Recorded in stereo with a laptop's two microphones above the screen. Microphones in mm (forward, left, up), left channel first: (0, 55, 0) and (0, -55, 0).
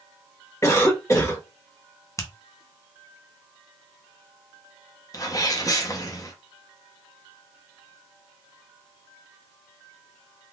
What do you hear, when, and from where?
0.6 s a cough: 30° left (ahead or behind), 1.3 m
2.2 s a finger snap: 25° left (ahead or behind), 0.7 m
5.1 s a sneeze: 35° left (ahead or behind), 0.8 m